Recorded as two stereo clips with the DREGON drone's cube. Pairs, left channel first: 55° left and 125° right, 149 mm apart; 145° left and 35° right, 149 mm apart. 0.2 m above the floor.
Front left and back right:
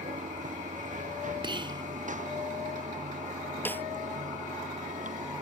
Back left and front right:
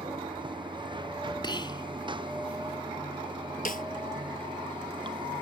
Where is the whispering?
170° right.